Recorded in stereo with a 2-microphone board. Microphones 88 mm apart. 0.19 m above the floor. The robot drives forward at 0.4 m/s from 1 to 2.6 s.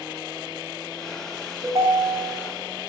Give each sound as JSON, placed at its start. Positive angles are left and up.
{"t": 1.6, "sound": "a ringtone", "side_deg": -40, "distance_m": 0.7}